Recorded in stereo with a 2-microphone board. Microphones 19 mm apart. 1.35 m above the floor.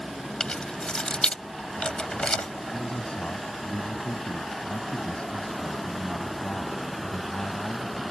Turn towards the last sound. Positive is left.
turn(degrees=75)  # may be behind; listen again after turning